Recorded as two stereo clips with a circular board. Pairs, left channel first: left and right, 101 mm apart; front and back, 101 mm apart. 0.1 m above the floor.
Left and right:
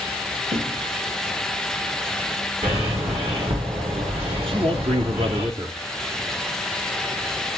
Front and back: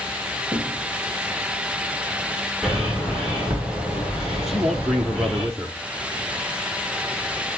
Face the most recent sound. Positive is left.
turn(degrees=-90)